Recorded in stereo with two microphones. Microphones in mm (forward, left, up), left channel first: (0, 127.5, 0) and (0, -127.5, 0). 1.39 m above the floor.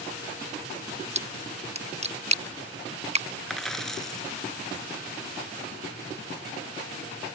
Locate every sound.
1.1 s a splash: 25° right (ahead or behind)
3.5 s a dropped coin: centre (ahead or behind)